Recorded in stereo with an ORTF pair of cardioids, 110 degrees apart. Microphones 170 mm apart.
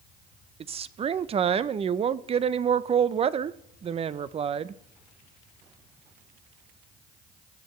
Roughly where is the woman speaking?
Ahead right.